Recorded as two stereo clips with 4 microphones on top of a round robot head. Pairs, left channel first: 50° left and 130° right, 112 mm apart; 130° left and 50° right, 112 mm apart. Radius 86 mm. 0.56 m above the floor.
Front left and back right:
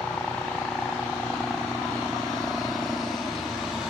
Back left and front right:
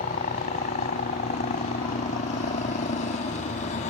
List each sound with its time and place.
0.0 s a helicopter: 130° left; by 3.9 s 145° left